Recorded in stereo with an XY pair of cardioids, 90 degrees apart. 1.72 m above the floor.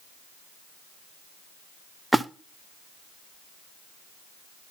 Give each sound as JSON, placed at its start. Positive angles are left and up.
{"t": 2.1, "sound": "a splash", "azimuth_deg": -10, "distance_m": 0.7}